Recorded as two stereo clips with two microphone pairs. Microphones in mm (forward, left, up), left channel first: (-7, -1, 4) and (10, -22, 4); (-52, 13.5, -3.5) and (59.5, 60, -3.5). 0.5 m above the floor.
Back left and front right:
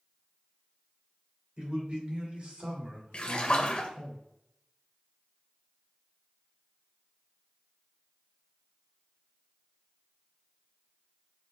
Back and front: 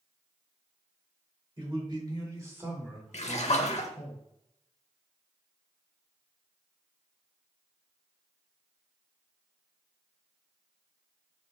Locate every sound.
1.6 s a man speaking: 10° right, 2 m; by 4.1 s 105° right, 1.9 m
3.1 s a splash: 175° left, 0.6 m